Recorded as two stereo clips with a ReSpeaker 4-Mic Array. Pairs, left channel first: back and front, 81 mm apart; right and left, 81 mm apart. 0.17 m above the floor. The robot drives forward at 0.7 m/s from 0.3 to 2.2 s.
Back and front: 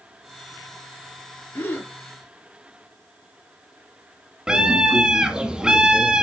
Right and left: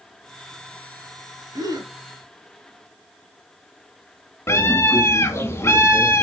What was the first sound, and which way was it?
A gasp, 115° left.